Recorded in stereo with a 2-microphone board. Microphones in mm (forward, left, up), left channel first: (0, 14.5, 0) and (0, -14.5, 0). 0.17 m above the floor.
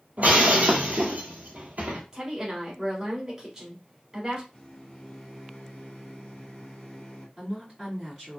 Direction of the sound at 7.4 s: 10° right (ahead or behind).